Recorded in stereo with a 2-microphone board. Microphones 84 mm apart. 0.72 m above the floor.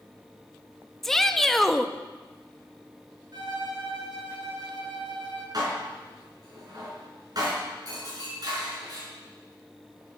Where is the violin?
55° right (ahead or behind), 4.5 m.